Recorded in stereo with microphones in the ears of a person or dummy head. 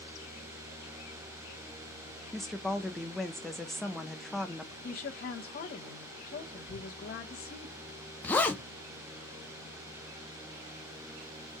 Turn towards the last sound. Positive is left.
turn(degrees=15)  # may be behind; listen again after turning